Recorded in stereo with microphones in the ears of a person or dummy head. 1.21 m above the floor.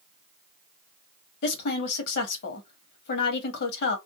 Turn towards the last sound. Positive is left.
turn(degrees=65)  # may be behind; listen again after turning